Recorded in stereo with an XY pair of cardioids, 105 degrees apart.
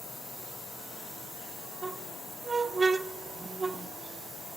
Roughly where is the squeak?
Ahead right.